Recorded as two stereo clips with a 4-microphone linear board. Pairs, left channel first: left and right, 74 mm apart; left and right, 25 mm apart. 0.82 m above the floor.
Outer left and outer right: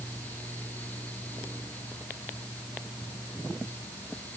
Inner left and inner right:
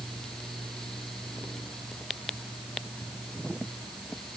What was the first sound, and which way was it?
Only background noise.